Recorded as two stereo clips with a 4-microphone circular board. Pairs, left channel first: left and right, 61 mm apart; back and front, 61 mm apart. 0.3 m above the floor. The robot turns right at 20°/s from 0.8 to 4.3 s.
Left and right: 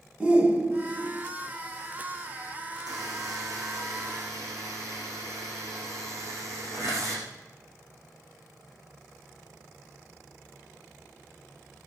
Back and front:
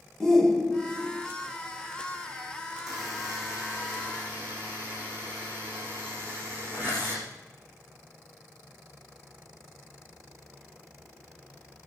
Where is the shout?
110° right, 1.0 m; by 1.2 s 100° right, 1.0 m.